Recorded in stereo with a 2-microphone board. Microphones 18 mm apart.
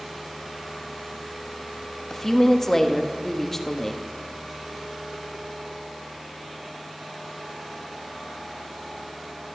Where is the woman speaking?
20° left (ahead or behind), 1.2 m.